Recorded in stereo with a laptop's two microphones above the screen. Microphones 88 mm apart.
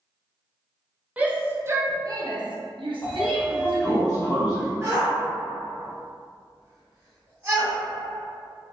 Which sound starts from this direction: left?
A sliding door, at 3.0 s.